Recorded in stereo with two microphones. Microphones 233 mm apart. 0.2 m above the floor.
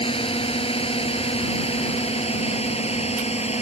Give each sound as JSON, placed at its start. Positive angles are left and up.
{"t": 0.0, "sound": "a drone", "side_deg": 25}